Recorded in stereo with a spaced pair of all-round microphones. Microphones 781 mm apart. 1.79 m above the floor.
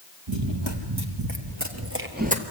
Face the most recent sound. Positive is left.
turn(degrees=-10)  # may be behind; listen again after turning